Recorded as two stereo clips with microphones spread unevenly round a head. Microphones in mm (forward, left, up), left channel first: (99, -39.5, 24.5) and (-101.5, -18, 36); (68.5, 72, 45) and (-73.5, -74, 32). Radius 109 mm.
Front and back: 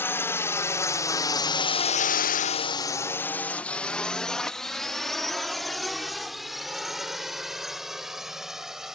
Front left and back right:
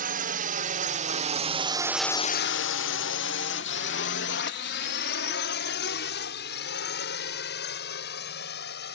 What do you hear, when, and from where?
0.0 s a drone: 85° right; by 8.9 s 85° left